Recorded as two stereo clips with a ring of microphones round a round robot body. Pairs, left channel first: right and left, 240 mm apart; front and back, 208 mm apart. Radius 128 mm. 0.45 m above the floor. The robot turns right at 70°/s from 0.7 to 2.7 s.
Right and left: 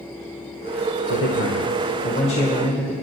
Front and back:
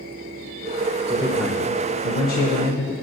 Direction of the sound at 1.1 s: 120° right.